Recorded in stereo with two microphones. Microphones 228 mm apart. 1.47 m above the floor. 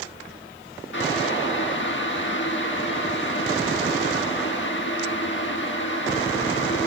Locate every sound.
0.9 s boiling: 60° left (ahead or behind), 1.5 m